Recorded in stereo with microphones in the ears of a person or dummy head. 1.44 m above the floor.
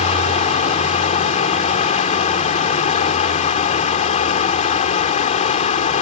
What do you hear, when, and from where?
0.0 s running water: 40° left (ahead or behind)